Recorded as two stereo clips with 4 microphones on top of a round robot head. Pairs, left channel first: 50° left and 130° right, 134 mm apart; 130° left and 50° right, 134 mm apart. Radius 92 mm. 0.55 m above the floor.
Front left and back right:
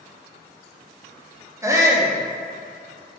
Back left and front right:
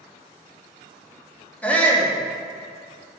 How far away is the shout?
About 1.3 m.